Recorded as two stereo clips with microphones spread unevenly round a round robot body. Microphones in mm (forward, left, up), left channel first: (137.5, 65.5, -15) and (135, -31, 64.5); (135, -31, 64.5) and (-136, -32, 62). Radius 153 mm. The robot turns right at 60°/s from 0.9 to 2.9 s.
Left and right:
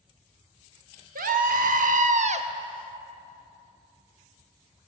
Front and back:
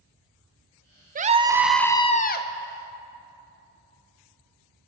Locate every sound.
1.1 s a scream: 125° right, 1.0 m; by 2.5 s 45° right, 1.0 m